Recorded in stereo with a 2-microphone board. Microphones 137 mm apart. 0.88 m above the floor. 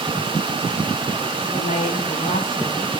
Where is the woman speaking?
75° left (ahead or behind), 7 m.